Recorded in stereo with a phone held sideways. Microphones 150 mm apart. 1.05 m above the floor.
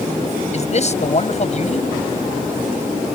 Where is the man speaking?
50° left (ahead or behind).